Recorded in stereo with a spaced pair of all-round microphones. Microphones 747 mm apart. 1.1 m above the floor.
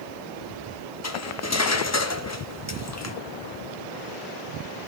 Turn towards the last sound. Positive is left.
turn(degrees=25)  # may be behind; listen again after turning